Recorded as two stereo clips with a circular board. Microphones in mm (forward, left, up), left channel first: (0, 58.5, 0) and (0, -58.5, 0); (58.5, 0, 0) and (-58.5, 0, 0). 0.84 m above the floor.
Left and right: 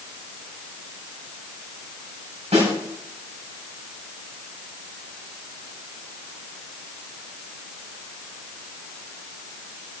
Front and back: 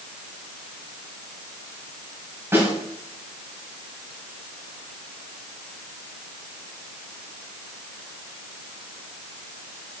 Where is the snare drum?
110° right, 4 m.